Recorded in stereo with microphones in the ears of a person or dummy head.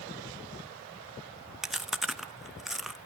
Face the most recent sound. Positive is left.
turn(degrees=0)  # may be behind; listen again after turning